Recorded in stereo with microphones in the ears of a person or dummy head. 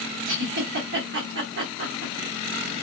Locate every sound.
0.2 s a giggle: 55° right (ahead or behind), 1.6 m